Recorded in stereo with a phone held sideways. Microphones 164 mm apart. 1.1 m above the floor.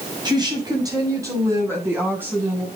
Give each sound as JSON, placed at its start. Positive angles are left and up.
{"t": 0.2, "sound": "a woman speaking", "side_deg": -25, "distance_m": 5.5}